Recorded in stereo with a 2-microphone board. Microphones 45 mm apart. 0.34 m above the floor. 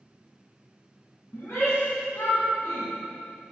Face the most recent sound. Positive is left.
turn(degrees=65)  # may be behind; listen again after turning